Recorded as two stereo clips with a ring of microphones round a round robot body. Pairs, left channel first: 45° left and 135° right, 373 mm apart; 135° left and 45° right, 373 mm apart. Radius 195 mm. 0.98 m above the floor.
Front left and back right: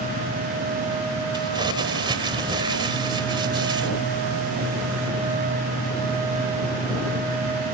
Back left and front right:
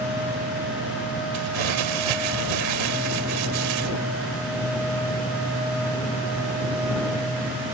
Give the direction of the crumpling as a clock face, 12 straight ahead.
2 o'clock.